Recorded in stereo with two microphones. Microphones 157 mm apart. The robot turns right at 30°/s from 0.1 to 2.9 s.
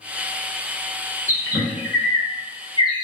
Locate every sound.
1.3 s a bird: 20° right (ahead or behind), 0.8 m; by 3.0 s 30° left (ahead or behind), 0.8 m